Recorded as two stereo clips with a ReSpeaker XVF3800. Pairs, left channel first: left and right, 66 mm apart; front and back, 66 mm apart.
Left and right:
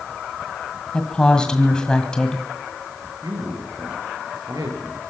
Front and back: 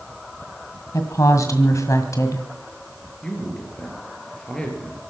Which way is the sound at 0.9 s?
15° left.